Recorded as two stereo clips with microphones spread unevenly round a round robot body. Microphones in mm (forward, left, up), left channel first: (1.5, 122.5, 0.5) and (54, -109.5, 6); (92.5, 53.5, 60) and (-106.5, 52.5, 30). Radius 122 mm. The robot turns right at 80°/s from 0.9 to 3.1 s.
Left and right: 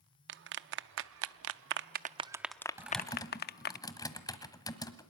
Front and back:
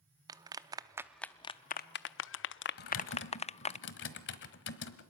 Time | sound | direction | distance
0.3 | a clap | 115° right | 0.6 m
2.8 | typing on a keyboard | straight ahead | 1.4 m